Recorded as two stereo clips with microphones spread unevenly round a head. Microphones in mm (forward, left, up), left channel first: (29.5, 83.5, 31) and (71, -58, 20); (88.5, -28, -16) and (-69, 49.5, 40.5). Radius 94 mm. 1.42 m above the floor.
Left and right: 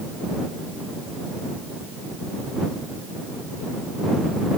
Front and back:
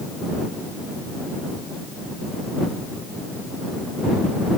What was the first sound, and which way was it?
Only background noise.